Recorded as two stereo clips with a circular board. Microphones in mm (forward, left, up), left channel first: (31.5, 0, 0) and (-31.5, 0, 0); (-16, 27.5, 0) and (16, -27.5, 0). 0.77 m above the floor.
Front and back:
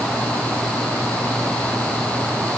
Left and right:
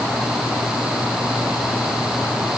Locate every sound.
Only background noise.